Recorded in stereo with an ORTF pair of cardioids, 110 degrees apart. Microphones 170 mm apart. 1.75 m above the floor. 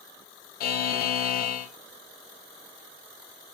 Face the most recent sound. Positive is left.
turn(degrees=65)